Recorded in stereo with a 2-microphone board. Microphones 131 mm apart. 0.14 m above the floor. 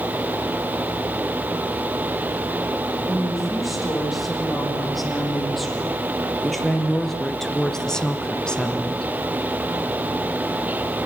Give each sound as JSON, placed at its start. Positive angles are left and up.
{"t": 3.0, "sound": "a woman speaking", "side_deg": 0, "distance_m": 7.5}